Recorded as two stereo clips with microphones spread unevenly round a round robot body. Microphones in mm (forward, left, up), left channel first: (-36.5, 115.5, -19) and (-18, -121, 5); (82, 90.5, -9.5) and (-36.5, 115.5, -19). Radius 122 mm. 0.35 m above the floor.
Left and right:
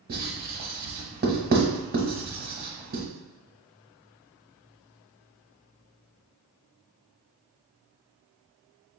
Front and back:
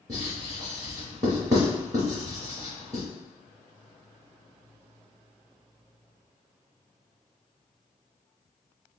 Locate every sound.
0.1 s writing: 140° right, 1.0 m